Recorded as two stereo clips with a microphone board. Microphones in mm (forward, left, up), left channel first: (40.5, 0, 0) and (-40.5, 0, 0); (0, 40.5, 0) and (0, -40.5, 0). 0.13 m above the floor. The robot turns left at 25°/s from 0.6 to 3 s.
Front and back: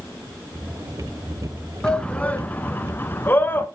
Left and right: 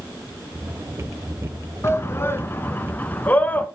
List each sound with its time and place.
1.8 s a shout: 70° left, 1.4 m; by 3.7 s 40° left, 1.4 m